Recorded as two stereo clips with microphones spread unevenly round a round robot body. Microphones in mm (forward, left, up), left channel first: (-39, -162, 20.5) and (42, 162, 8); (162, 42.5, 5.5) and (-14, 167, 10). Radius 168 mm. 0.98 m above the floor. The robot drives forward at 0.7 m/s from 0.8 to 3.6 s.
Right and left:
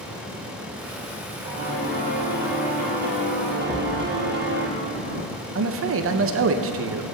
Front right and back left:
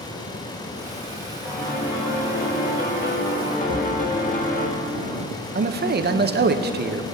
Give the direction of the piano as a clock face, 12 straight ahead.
12 o'clock.